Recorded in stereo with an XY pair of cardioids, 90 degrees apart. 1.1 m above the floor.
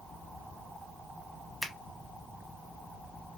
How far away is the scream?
I don't hear a scream.